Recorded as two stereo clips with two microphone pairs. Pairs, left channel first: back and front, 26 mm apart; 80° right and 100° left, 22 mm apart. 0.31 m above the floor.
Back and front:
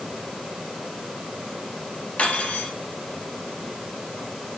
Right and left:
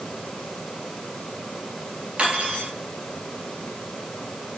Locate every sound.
2.2 s cutlery clinking: 140° left, 3.5 m